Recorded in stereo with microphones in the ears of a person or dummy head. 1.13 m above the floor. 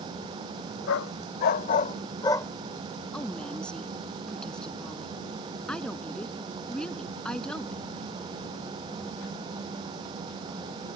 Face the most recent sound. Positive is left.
turn(degrees=5)  # may be behind; listen again after turning